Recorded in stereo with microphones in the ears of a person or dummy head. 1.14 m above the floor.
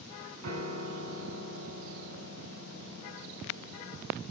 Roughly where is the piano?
Right.